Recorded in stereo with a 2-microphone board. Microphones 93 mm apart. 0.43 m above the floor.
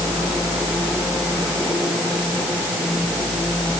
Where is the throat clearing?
I don't hear throat clearing.